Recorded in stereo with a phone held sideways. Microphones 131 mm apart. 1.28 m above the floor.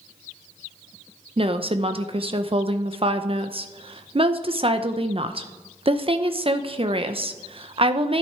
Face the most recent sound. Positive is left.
turn(degrees=-40)  # may be behind; listen again after turning